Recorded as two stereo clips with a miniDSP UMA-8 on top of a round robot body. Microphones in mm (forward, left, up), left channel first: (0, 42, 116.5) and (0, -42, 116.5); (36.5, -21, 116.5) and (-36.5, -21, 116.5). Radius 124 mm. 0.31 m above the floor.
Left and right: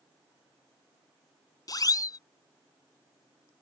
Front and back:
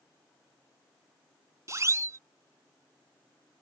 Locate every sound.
1.7 s a siren: 130° left